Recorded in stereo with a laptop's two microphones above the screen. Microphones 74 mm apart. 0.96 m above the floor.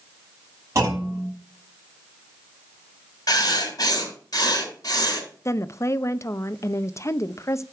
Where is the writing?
60° left (ahead or behind), 2.5 m.